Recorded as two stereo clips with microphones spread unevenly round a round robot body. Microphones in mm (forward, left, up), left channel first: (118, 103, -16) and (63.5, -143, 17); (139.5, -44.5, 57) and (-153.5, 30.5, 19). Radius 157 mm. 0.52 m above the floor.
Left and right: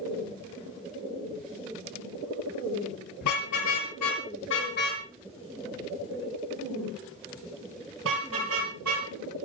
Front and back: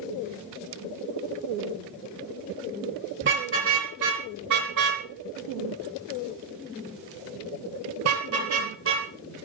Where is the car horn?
110° left, 5 m; by 9.1 s 145° right, 6.5 m.